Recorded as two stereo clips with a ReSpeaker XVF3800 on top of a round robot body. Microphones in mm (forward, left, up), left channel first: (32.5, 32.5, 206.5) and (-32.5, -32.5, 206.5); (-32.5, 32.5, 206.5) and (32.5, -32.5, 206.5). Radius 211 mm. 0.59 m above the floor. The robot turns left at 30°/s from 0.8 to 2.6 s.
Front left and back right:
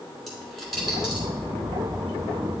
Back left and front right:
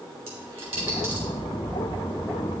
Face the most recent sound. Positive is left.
turn(degrees=-100)